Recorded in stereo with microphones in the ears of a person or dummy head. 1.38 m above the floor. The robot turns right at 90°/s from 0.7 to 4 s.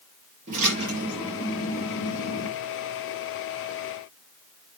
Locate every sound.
0.5 s a splash: 45° right, 4 m; by 2.5 s 115° left, 4 m